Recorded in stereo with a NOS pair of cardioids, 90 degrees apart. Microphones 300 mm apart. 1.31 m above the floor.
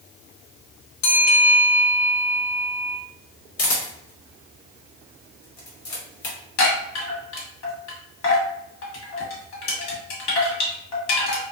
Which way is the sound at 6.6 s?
60° left.